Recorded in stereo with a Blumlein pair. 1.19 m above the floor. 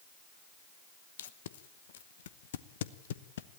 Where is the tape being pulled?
60° left, 0.9 m.